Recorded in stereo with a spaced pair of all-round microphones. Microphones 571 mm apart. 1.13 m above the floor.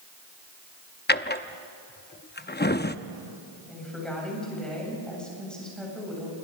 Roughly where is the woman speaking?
Centre.